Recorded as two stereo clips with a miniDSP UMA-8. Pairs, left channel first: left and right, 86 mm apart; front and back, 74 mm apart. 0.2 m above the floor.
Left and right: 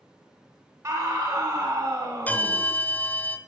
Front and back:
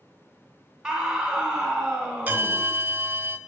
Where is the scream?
105° right, 1.8 m.